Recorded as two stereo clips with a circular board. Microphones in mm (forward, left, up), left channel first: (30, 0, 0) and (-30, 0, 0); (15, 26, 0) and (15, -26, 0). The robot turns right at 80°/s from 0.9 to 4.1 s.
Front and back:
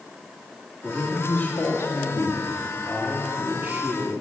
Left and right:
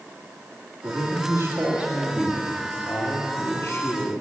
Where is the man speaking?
95° right, 1.7 m; by 4.1 s 160° left, 1.7 m.